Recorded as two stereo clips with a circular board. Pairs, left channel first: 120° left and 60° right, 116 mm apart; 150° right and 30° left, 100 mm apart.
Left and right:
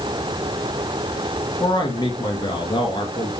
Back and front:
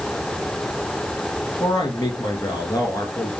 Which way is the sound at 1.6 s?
165° left.